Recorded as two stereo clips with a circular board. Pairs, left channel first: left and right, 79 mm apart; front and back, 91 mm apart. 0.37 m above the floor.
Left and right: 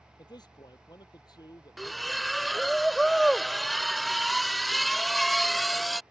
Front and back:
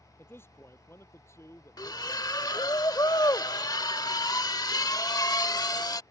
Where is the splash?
Straight ahead.